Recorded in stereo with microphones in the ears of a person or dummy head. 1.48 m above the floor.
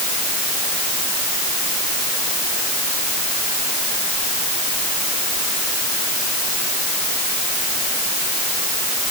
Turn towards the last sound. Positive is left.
No sound to turn to.